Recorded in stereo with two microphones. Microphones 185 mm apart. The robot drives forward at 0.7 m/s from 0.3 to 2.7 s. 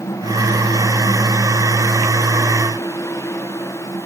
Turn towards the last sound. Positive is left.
No sound to turn to.